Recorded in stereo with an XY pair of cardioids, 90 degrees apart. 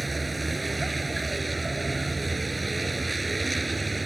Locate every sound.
0.0 s a vehicle: 10° right